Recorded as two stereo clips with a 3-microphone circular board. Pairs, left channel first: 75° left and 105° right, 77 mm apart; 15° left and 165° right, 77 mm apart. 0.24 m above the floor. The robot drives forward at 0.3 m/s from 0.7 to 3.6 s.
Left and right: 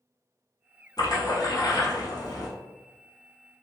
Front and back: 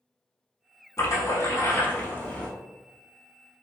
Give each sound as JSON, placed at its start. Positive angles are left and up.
{"t": 1.0, "sound": "a splash", "azimuth_deg": 55, "distance_m": 0.9}